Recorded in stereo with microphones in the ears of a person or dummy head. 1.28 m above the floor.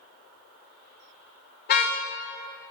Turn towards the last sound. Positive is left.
turn(degrees=55)  # may be behind; listen again after turning